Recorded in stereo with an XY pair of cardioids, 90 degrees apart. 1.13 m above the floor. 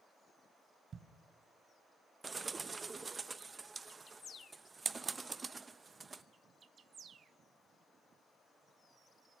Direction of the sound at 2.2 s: 30° right.